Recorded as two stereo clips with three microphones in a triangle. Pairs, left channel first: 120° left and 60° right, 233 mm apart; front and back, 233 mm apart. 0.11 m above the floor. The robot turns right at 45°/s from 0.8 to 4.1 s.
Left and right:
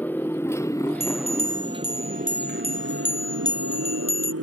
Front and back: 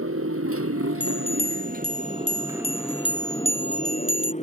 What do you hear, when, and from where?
0.0 s a motorcycle: 155° right; by 4.4 s 60° right
1.0 s a bell: 45° right; by 4.3 s 95° left